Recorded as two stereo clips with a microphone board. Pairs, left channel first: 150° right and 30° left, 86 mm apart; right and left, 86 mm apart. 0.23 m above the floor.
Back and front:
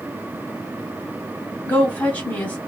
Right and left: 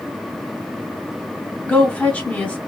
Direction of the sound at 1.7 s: 135° right.